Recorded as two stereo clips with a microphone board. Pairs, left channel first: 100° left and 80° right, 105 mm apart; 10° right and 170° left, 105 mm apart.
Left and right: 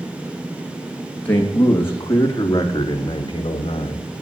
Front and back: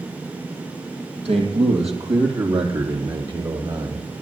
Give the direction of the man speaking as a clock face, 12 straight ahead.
6 o'clock.